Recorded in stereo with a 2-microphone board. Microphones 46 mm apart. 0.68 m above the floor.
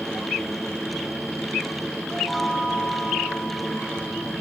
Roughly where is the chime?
Centre.